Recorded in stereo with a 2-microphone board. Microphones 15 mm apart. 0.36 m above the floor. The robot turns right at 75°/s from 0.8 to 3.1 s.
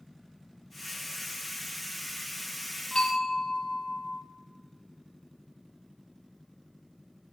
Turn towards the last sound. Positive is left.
turn(degrees=65)  # may be behind; listen again after turning